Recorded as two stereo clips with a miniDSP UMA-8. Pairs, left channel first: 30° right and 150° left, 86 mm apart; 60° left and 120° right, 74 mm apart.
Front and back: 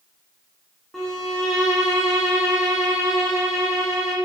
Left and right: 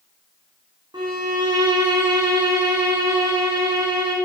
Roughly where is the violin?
Behind right.